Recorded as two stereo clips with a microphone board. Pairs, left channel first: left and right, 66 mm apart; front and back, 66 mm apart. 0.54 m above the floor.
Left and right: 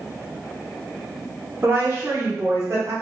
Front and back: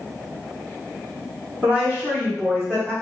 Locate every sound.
1.6 s a woman speaking: 120° right, 1.7 m; by 2.9 s 80° right, 1.5 m